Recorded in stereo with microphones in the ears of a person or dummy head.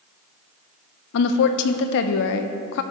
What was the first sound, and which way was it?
A woman speaking, 55° left (ahead or behind).